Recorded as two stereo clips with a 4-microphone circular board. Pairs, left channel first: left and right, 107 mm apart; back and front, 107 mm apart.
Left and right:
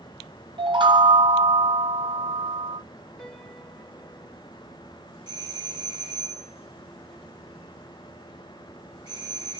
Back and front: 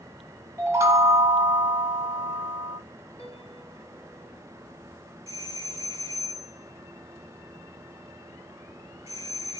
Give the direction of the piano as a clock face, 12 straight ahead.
6 o'clock.